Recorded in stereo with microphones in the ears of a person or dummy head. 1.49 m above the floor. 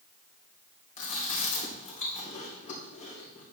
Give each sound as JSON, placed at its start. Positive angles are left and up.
{"t": 1.0, "sound": "chewing", "side_deg": 45, "distance_m": 2.5}